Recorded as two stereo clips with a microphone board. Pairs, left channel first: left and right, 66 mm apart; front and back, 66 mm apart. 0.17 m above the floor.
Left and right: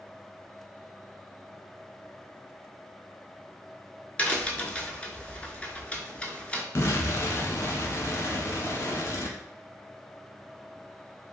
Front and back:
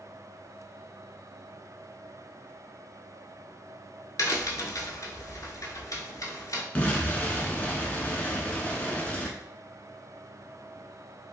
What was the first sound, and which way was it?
A crack, 20° left.